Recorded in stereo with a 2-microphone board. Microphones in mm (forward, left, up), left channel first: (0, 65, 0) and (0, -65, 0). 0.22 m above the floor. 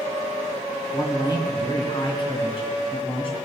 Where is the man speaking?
25° left (ahead or behind), 1.9 m; by 3.4 s 45° left (ahead or behind), 1.7 m.